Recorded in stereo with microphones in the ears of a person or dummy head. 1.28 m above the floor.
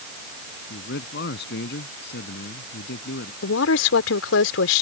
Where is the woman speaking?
75° left (ahead or behind).